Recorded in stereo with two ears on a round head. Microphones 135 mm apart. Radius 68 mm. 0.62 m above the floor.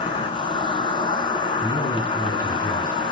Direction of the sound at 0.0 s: 35° left (ahead or behind).